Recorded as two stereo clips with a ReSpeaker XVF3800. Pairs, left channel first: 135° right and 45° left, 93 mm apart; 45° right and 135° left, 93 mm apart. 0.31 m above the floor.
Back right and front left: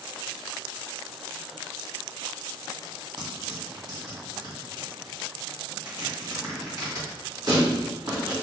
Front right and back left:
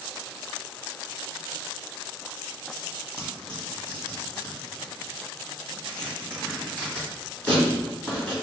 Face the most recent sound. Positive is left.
turn(degrees=25)